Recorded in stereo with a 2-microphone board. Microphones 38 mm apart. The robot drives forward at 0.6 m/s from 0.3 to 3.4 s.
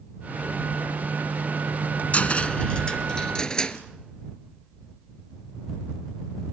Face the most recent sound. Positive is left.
turn(degrees=20)  # may be behind; listen again after turning